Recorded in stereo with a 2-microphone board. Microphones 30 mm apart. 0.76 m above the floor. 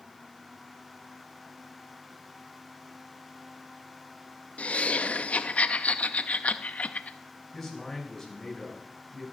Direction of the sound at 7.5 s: 10° left (ahead or behind).